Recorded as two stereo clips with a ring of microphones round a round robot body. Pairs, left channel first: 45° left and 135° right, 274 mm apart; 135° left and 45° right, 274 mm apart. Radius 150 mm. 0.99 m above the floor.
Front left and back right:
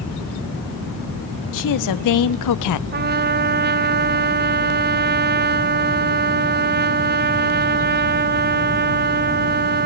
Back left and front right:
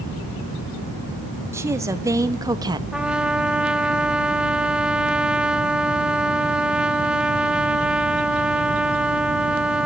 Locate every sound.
1.5 s a woman speaking: 35° left, 1.9 m; by 2.8 s 30° left, 0.9 m
2.9 s a trumpet: 130° right, 0.5 m